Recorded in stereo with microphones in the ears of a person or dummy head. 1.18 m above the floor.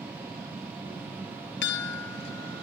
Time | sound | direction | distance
0.0 | a machine running | 5° right (ahead or behind) | ?
1.6 | a chime | 65° left (ahead or behind) | ?